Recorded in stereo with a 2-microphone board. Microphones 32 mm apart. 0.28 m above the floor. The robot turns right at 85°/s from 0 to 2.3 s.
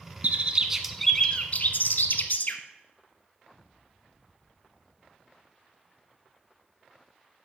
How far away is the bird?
About 0.7 m.